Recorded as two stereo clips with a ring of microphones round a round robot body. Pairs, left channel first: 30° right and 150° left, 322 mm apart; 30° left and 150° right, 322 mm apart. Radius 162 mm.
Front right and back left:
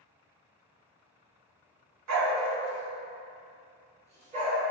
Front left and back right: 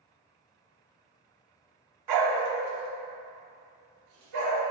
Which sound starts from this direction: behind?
A dog barking, at 2.1 s.